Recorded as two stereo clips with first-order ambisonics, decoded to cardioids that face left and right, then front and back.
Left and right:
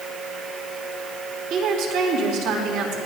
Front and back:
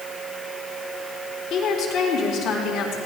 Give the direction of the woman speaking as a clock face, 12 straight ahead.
2 o'clock.